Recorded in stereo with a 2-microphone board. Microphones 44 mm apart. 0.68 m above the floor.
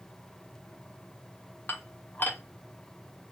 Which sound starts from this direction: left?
Dishes clattering, at 1.7 s.